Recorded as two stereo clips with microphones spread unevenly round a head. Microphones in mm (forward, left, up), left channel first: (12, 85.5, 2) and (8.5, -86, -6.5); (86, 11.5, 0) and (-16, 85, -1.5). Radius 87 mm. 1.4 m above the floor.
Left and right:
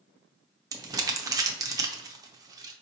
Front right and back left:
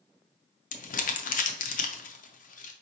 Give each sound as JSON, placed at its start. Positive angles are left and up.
{"t": 0.7, "sound": "crumpling", "azimuth_deg": -20, "distance_m": 0.6}